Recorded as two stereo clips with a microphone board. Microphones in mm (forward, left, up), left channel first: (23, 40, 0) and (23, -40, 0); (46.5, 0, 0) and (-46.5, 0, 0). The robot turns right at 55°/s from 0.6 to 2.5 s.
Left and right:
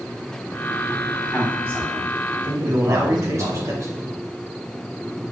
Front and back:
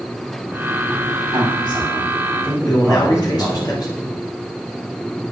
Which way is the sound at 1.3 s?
170° right.